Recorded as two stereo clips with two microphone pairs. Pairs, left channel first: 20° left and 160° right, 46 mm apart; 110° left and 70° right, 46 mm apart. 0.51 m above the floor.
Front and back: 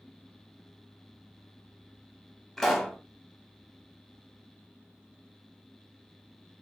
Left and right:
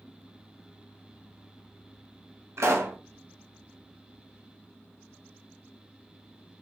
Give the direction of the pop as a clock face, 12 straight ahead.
2 o'clock.